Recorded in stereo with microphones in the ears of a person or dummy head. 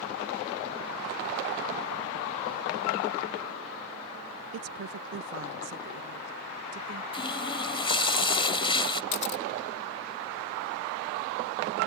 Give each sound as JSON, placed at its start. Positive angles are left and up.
{"t": 4.5, "sound": "a woman speaking", "side_deg": -80}
{"t": 7.1, "sound": "a running tap", "side_deg": 30}
{"t": 9.1, "sound": "a camera shutter", "side_deg": 45}